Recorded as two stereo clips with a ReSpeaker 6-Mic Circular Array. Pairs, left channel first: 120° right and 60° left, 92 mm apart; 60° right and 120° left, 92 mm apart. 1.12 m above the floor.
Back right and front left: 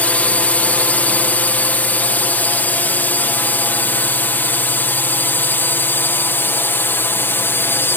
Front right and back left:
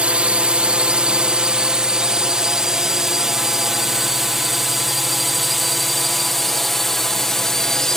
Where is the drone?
175° right; by 8.0 s 140° right.